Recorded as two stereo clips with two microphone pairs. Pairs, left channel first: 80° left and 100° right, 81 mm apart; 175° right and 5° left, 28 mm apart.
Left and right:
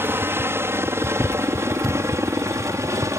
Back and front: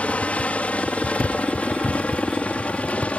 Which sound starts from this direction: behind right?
A helicopter, at 0.0 s.